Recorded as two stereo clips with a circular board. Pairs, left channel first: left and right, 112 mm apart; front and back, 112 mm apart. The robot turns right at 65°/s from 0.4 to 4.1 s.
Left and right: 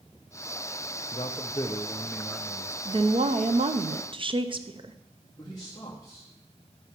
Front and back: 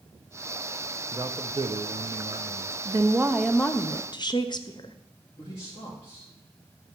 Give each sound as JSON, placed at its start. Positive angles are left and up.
{"t": 1.1, "sound": "a man speaking", "azimuth_deg": 115, "distance_m": 0.7}
{"t": 2.9, "sound": "a woman speaking", "azimuth_deg": -130, "distance_m": 0.7}
{"t": 5.4, "sound": "a man speaking", "azimuth_deg": 35, "distance_m": 1.9}